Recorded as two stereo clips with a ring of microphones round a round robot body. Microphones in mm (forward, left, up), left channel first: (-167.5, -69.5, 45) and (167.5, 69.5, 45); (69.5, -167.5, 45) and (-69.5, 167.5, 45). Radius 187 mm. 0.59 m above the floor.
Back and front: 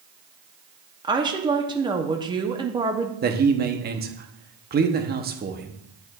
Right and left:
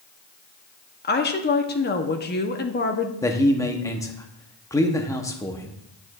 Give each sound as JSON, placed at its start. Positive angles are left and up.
{"t": 1.0, "sound": "a woman speaking", "azimuth_deg": -45, "distance_m": 0.9}
{"t": 3.2, "sound": "a man speaking", "azimuth_deg": 5, "distance_m": 0.9}